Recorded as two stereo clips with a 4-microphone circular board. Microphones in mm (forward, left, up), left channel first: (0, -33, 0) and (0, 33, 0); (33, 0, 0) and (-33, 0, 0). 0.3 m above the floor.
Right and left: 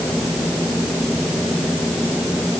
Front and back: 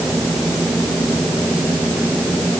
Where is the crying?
I don't hear crying.